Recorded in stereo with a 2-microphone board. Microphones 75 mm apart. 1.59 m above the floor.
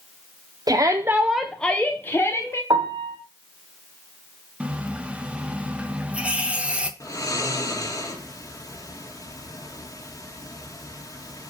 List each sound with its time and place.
0.7 s a shout: 60° right (ahead or behind), 0.7 m; by 2.6 s 35° left (ahead or behind), 1.5 m
2.7 s a piano: 90° right, 1.1 m
4.6 s a running tap: 15° right (ahead or behind), 0.7 m
7.0 s snoring: 45° left (ahead or behind), 1.7 m